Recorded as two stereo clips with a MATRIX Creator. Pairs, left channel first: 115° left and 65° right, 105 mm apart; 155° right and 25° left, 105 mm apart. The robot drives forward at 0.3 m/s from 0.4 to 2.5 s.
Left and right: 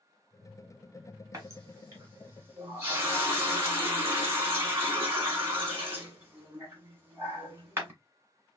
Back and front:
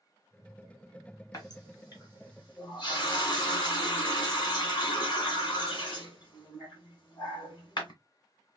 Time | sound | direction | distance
1.3 | a running tap | 115° right | 1.6 m